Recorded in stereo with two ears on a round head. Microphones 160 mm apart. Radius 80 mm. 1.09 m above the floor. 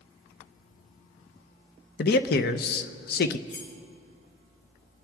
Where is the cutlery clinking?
65° left (ahead or behind), 1.9 m.